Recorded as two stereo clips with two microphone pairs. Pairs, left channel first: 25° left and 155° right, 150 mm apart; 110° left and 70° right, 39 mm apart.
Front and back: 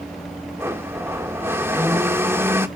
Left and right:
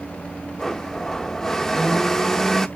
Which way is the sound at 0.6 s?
170° left.